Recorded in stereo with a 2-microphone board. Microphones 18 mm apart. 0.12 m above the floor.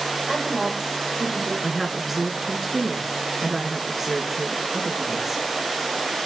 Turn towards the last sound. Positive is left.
turn(degrees=-15)  # may be behind; listen again after turning